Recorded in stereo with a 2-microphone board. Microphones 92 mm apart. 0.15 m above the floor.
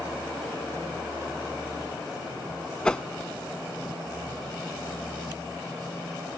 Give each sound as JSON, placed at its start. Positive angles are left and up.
{"t": 2.9, "sound": "a whoosh", "side_deg": 10}